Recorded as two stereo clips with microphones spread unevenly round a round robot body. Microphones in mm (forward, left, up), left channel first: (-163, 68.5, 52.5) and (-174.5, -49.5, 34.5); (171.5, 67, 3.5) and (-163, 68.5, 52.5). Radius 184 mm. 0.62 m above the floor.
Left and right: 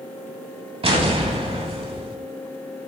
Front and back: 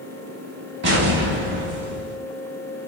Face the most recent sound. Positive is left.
turn(degrees=-135)